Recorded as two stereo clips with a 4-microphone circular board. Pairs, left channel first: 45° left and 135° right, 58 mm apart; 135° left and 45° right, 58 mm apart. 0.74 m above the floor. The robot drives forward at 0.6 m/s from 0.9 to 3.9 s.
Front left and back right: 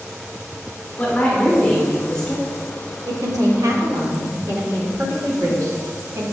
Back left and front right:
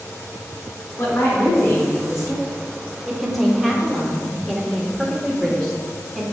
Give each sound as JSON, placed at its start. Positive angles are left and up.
{"t": 1.0, "sound": "a woman speaking", "azimuth_deg": 105, "distance_m": 2.5}
{"t": 3.1, "sound": "a woman speaking", "azimuth_deg": -130, "distance_m": 1.3}